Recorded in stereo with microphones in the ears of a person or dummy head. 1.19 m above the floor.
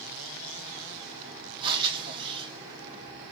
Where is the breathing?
25° right (ahead or behind), 0.6 m.